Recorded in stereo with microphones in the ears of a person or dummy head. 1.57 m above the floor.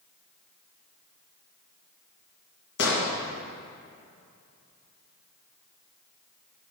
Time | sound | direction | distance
2.8 | an explosion | 75° left (ahead or behind) | 1.8 m